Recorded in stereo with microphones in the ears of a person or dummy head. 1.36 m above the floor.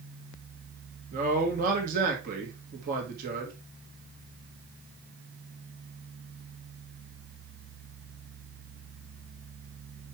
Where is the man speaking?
40° right (ahead or behind), 1.9 m.